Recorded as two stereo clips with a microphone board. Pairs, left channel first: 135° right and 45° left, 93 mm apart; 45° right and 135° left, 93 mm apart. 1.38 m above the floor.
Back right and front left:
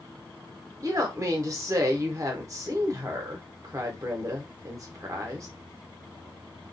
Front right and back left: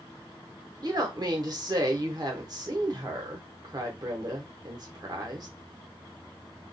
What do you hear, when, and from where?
0.8 s a woman speaking: 95° left, 0.8 m